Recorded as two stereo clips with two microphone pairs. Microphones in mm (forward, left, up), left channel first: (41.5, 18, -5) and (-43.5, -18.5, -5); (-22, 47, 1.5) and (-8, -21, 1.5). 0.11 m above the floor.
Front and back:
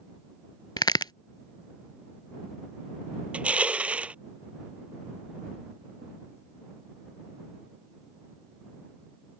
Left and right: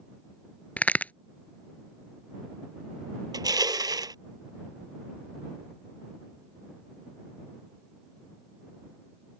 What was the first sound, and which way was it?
A crack, 40° left.